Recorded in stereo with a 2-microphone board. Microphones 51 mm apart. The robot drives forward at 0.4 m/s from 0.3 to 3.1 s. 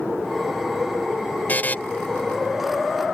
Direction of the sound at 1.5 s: 35° left (ahead or behind).